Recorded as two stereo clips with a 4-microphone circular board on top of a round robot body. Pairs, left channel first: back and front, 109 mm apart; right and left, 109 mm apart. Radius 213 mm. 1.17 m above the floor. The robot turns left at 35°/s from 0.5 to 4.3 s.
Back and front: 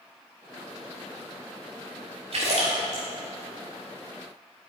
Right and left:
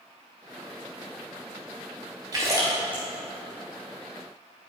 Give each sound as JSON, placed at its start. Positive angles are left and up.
{"t": 2.3, "sound": "a splash", "azimuth_deg": 35, "distance_m": 0.8}